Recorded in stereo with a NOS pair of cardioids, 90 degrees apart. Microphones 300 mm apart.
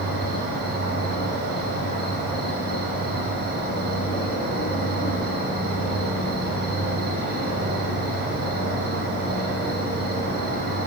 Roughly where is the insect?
Ahead right.